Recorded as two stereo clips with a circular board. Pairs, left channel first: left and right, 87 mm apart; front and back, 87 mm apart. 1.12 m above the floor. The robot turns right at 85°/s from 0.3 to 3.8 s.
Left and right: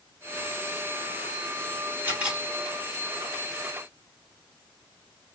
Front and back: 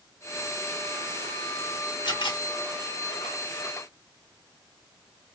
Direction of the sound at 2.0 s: 30° right.